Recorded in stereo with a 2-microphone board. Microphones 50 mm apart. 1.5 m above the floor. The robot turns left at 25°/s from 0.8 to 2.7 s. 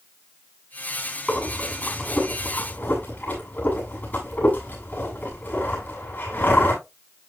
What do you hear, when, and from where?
1.3 s breathing: centre (ahead or behind), 7 m; by 6.8 s 40° left (ahead or behind), 7 m